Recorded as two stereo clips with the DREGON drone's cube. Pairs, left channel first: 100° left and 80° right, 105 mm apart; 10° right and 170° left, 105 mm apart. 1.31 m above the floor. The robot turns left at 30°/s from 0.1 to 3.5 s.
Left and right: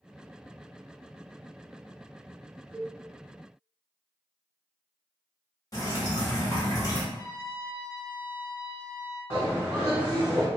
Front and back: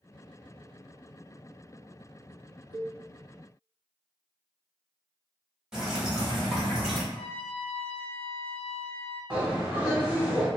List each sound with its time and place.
2.7 s a cowbell: 155° right, 0.7 m; by 2.9 s 160° right, 0.7 m
5.7 s dripping: 95° left, 1.1 m
7.1 s a trumpet: 25° right, 0.7 m
9.3 s a bird: 130° right, 1.5 m